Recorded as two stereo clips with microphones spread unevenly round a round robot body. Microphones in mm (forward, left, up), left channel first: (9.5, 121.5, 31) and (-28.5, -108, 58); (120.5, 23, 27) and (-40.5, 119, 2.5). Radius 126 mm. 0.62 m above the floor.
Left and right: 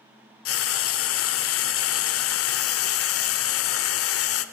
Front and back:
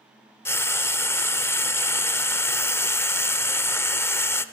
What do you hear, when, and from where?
0.5 s frying: 50° left, 0.8 m